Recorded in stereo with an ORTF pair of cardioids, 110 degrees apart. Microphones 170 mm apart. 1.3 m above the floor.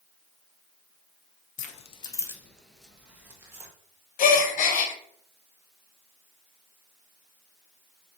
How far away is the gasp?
About 0.8 m.